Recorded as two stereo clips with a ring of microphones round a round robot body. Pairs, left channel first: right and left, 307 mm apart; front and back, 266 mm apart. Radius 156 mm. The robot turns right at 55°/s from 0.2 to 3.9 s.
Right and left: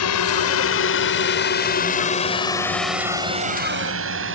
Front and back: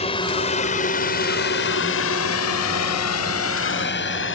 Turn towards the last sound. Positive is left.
turn(degrees=40)